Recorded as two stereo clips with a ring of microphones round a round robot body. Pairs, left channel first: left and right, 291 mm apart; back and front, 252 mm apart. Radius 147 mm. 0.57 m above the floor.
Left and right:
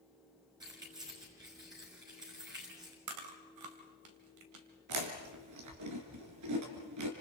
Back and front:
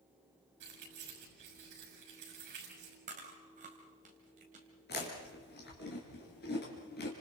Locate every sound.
0.6 s keys jangling: 10° right, 6.5 m
3.1 s chewing: 65° right, 2.5 m
4.9 s chewing: 120° right, 3.5 m